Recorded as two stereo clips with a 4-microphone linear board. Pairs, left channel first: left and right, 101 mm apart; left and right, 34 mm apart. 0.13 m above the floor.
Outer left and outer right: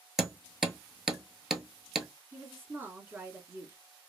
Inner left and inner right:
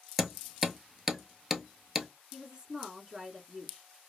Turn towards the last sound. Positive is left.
turn(degrees=-20)  # may be behind; listen again after turning